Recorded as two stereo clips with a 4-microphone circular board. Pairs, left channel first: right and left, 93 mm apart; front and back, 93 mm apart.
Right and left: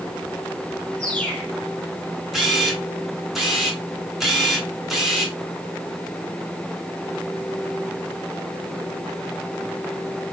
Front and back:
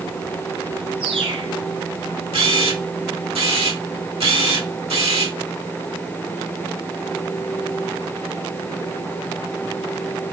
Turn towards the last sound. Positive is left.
turn(degrees=175)